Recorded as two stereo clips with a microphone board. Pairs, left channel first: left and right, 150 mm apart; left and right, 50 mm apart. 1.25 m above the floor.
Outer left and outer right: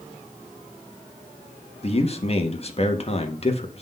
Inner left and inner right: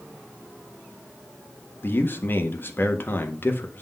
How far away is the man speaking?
About 1.5 m.